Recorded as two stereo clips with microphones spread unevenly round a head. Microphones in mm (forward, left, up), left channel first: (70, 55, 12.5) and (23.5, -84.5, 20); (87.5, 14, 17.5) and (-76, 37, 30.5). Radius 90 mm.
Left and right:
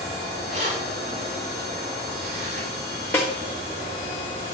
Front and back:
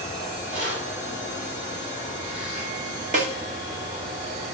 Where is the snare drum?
150° left, 1.4 m.